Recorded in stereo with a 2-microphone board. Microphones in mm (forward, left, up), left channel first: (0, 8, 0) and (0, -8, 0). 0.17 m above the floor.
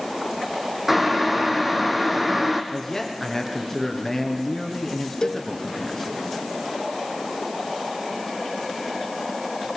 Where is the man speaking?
10° left (ahead or behind), 2.5 m.